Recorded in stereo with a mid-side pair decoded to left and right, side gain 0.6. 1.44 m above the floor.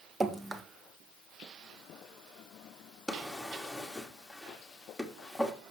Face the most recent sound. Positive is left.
turn(degrees=0)